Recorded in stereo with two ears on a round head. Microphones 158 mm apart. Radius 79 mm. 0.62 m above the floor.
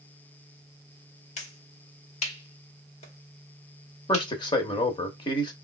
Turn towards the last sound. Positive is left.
turn(degrees=25)  # may be behind; listen again after turning